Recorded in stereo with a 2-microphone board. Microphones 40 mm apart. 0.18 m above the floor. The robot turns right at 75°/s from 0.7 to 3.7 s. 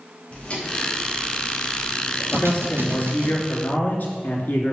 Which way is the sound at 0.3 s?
30° left (ahead or behind).